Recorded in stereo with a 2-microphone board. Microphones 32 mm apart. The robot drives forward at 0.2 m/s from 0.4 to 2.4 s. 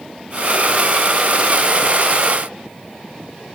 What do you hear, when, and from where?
Only background noise.